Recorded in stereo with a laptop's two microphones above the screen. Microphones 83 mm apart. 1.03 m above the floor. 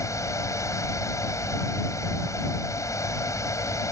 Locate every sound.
0.0 s a fan: 40° left (ahead or behind)